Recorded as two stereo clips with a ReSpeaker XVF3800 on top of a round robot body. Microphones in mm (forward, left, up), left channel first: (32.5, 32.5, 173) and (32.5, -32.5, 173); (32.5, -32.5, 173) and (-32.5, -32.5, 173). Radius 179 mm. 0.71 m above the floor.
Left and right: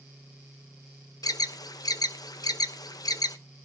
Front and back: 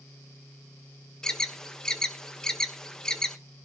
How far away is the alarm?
About 1.1 m.